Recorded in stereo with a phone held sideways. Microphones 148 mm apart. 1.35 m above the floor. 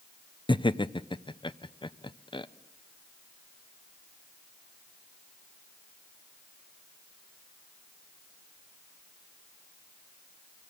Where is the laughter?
35° left (ahead or behind), 0.6 m.